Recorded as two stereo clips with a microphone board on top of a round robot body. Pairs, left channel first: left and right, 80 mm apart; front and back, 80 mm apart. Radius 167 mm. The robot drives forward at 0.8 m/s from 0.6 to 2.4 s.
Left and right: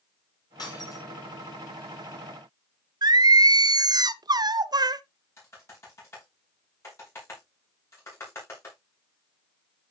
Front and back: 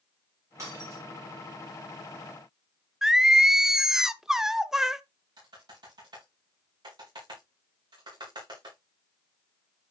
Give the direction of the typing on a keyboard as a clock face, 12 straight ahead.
7 o'clock.